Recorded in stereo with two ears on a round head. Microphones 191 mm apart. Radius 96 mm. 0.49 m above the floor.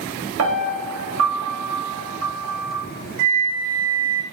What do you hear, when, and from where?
0.4 s a piano: 70° right (ahead or behind), 0.9 m
3.2 s a flute: 60° right (ahead or behind), 0.5 m